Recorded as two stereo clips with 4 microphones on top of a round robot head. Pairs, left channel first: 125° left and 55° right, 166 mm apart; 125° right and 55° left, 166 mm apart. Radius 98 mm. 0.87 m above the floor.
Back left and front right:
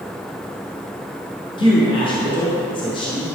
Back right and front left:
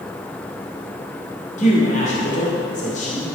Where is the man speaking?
175° right, 2.5 m.